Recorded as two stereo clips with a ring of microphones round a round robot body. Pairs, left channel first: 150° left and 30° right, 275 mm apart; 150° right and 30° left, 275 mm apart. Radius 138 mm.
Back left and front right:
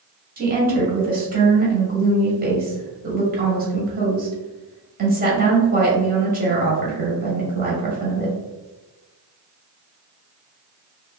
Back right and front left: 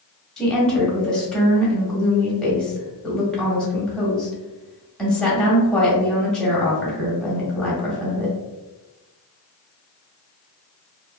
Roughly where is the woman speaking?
Ahead right.